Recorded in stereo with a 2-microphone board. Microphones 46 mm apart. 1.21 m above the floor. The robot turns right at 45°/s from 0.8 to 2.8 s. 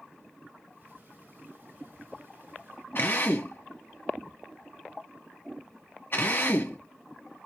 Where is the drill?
50° left (ahead or behind), 1.1 m.